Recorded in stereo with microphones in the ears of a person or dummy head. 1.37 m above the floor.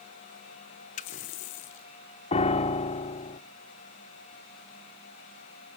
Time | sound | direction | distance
1.0 | a running tap | 35° left (ahead or behind) | 0.7 m
2.3 | a piano | 35° left (ahead or behind) | 0.7 m